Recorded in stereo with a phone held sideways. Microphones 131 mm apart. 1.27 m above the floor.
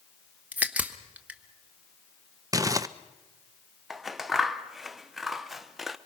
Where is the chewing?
No chewing in this recording.